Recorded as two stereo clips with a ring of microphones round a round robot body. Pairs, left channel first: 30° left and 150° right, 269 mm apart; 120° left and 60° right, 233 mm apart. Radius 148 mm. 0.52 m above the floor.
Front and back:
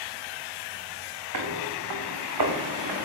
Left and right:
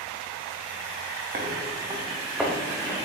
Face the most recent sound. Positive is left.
turn(degrees=-165)